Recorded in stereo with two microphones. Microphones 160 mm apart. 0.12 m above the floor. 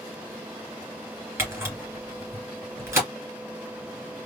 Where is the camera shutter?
15° right (ahead or behind), 2.5 m.